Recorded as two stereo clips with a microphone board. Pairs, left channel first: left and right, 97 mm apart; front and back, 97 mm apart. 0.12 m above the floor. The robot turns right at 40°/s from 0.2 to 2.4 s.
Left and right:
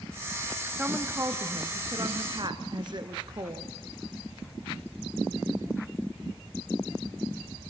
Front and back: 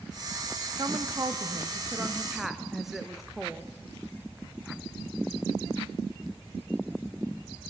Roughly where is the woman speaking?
Behind.